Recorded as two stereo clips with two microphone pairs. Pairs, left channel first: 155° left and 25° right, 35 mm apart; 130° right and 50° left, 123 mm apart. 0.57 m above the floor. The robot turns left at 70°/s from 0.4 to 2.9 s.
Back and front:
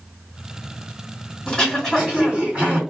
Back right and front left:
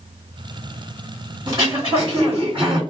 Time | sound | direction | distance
1.5 | throat clearing | 95° left | 1.8 m